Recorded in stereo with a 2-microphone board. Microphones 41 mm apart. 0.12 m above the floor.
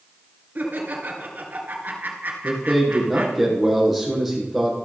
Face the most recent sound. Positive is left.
turn(degrees=-5)  # may be behind; listen again after turning